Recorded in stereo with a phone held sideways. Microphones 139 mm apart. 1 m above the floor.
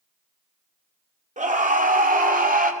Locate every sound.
1.4 s a scream: 65° right (ahead or behind), 2.5 m; by 2.7 s 85° right, 3 m